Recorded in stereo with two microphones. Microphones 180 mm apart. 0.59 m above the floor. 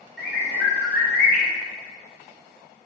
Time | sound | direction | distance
0.2 | a bird | 75° left (ahead or behind) | 0.9 m